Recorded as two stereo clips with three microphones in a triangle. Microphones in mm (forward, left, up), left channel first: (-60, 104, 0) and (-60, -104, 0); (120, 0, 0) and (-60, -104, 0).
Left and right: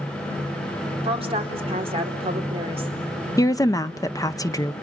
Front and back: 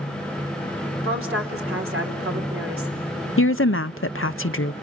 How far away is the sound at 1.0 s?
About 4.5 m.